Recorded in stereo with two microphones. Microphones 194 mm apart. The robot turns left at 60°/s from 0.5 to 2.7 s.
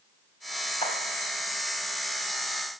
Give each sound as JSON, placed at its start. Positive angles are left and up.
{"t": 0.8, "sound": "a clap", "side_deg": 30, "distance_m": 2.0}